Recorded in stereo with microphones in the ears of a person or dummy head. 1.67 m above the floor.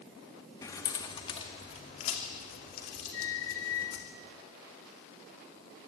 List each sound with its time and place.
0.6 s keys jangling: 20° left (ahead or behind), 1.9 m; by 4.0 s 60° left (ahead or behind), 4 m
3.1 s a squeak: 20° left (ahead or behind), 0.7 m